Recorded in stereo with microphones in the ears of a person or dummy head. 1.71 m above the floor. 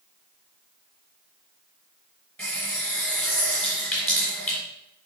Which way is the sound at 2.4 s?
10° left (ahead or behind).